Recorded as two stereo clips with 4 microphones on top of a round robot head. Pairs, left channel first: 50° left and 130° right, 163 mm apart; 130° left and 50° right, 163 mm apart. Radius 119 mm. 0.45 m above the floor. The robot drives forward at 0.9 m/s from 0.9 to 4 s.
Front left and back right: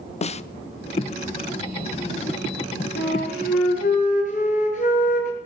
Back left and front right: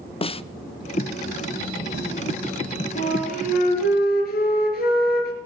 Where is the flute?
80° left, 3.5 m; by 5.3 s 95° left, 3.5 m.